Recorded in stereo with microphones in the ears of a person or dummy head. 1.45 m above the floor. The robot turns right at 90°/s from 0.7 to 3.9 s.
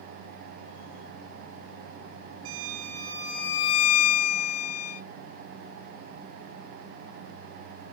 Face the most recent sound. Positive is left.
turn(degrees=50)